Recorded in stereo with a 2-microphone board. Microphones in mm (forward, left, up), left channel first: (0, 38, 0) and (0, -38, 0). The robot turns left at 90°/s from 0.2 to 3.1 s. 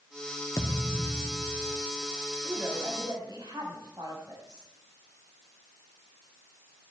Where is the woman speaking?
Straight ahead, 4.5 m; by 4.7 s 60° right, 4.5 m.